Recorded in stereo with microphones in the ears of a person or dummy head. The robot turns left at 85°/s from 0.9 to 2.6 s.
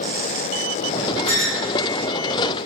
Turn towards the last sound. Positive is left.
turn(degrees=15)